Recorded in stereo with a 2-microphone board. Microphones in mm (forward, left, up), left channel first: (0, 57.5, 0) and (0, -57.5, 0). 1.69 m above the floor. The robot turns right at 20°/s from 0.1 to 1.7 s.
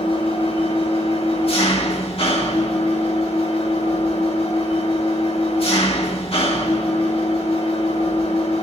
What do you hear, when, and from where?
0.0 s an engine running: 60° left, 1.6 m; by 8.6 s 95° left, 1.6 m